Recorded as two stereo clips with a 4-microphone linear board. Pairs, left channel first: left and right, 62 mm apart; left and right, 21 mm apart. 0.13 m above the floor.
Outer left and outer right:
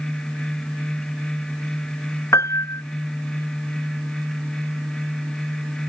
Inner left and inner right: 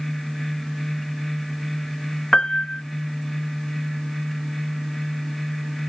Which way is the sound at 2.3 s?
55° left (ahead or behind).